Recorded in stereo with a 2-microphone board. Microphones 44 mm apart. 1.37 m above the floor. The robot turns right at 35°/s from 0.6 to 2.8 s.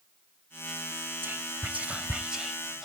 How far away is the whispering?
About 1.0 m.